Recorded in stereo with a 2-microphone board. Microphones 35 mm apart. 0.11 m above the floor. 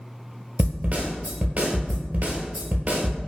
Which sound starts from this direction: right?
A snare drum, at 0.6 s.